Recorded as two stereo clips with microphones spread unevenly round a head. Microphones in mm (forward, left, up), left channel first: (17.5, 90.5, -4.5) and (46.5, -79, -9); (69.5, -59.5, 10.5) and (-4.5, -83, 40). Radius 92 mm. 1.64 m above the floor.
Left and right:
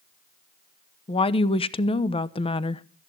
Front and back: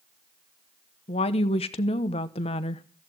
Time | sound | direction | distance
1.1 | a woman speaking | 40° left | 1.0 m